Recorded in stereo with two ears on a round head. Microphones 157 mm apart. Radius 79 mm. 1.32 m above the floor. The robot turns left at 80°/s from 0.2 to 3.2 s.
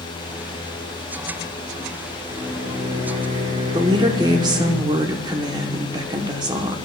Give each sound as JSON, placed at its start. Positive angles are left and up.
{"t": 2.3, "sound": "a microwave", "azimuth_deg": -15, "distance_m": 1.6}
{"t": 3.7, "sound": "a woman speaking", "side_deg": -25, "distance_m": 0.9}